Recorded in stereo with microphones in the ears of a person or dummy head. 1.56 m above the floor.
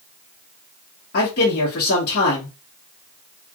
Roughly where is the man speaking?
Left.